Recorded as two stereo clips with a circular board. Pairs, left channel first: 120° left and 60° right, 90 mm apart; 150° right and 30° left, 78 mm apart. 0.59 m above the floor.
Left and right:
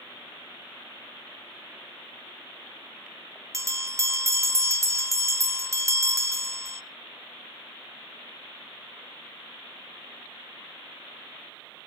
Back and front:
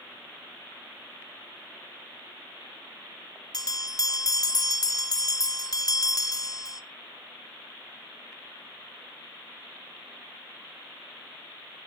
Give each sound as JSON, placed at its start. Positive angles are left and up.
{"t": 3.5, "sound": "a bell", "azimuth_deg": -115, "distance_m": 0.9}